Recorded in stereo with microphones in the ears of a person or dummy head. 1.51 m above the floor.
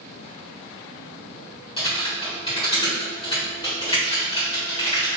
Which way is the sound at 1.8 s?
25° left (ahead or behind).